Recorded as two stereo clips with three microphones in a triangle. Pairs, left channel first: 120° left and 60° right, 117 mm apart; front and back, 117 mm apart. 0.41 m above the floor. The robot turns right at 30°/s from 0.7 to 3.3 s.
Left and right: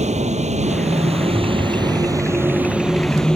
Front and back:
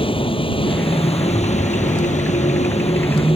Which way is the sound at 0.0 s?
40° right.